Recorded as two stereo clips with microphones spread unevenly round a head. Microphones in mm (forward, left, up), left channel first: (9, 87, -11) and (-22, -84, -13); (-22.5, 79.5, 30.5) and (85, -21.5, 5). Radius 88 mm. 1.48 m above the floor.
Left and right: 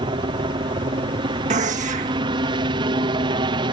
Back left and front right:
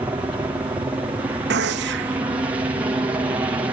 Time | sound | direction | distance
0.0 | a helicopter | 85° right | ?
1.5 | a gunshot | 50° right | ?